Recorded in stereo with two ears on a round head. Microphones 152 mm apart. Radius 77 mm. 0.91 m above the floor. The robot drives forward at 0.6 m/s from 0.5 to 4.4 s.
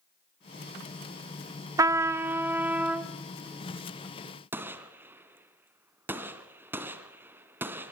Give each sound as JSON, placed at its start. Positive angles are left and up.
{"t": 1.8, "sound": "a trumpet", "side_deg": -20, "distance_m": 0.6}
{"t": 4.5, "sound": "a gunshot", "side_deg": -15, "distance_m": 1.3}